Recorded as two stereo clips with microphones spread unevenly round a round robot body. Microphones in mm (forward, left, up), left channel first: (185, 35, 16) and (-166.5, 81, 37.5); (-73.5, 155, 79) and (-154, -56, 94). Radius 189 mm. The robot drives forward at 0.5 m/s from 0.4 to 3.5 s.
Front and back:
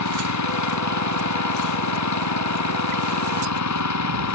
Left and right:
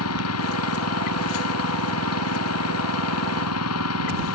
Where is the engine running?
35° left.